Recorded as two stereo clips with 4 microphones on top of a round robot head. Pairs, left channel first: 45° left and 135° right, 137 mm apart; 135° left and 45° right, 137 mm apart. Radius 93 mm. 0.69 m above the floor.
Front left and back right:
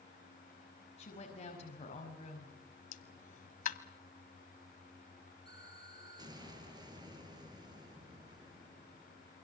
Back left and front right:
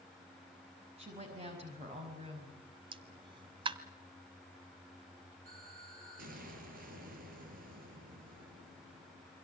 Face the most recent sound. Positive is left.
turn(degrees=-75)